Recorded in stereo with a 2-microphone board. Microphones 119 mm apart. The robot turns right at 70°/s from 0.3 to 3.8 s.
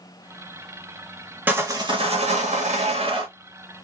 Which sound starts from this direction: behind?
Sawing, at 1.5 s.